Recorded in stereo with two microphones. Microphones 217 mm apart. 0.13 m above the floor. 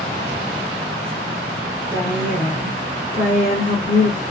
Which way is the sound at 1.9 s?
15° right (ahead or behind).